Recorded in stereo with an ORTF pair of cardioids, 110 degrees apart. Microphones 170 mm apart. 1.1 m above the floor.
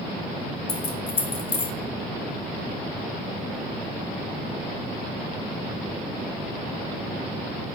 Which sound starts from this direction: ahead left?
Keys jangling, at 0.7 s.